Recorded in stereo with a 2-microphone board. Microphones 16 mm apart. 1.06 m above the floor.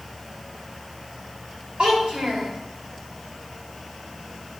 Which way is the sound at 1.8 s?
85° right.